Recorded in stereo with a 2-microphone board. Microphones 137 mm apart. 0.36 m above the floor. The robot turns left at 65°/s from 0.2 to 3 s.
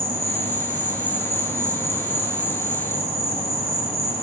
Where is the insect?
45° right, 6.5 m; by 4.2 s 130° left, 6.5 m.